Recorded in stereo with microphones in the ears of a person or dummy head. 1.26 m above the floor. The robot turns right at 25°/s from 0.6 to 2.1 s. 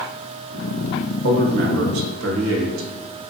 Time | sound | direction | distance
1.2 | a man speaking | 60° right (ahead or behind) | 0.7 m